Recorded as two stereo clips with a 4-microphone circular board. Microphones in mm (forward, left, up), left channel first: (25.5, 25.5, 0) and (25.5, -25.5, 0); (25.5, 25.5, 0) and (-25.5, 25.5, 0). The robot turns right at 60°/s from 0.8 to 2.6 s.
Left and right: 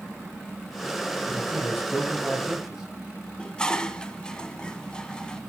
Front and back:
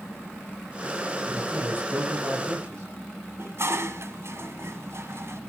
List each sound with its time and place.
1.2 s a man speaking: 110° left, 6 m; by 2.9 s 170° right, 6 m
3.4 s dishes clattering: 160° left, 1.5 m